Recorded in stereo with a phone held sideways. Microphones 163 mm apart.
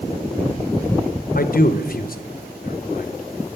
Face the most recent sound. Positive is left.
turn(degrees=65)  # may be behind; listen again after turning